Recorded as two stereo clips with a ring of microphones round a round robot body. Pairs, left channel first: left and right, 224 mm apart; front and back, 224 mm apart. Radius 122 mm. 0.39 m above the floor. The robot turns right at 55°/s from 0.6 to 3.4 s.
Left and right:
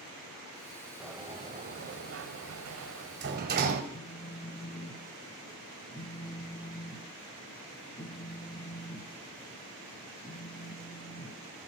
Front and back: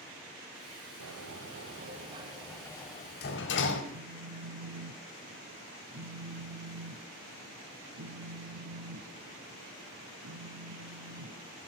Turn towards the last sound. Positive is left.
turn(degrees=155)